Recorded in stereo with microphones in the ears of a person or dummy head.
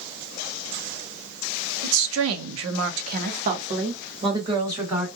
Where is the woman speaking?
65° right (ahead or behind), 0.7 m; by 5.1 s 20° right (ahead or behind), 1.5 m.